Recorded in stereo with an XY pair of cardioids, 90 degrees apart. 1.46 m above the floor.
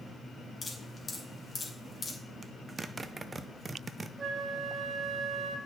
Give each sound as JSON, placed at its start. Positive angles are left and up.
{"t": 0.6, "sound": "dripping", "azimuth_deg": 25, "distance_m": 3.0}
{"t": 2.4, "sound": "a zipper", "azimuth_deg": -35, "distance_m": 0.7}
{"t": 4.2, "sound": "a flute", "azimuth_deg": -45, "distance_m": 1.4}